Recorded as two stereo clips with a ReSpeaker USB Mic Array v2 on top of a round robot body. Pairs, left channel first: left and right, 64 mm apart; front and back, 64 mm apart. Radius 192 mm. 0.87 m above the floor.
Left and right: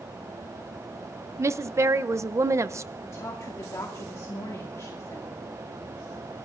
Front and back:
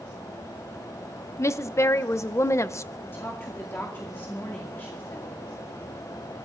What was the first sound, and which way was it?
A woman speaking, 45° right.